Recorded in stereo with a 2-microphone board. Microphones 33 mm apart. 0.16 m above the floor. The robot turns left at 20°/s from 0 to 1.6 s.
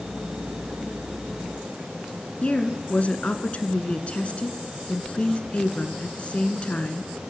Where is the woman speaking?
40° left (ahead or behind), 2 m.